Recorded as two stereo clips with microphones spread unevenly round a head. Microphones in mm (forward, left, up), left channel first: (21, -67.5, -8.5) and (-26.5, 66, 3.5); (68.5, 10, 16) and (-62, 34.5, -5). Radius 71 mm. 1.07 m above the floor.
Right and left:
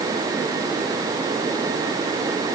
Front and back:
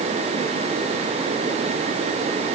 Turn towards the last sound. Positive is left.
No sound to turn to.